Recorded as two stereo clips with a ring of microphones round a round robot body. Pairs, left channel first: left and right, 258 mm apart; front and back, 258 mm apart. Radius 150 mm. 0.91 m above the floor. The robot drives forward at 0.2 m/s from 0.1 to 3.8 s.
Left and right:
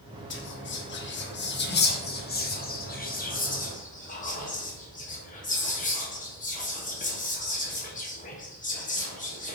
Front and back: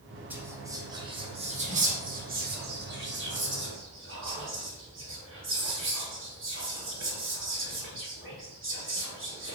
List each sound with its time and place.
0.3 s whispering: 100° left, 0.8 m; by 9.6 s 145° left, 1.1 m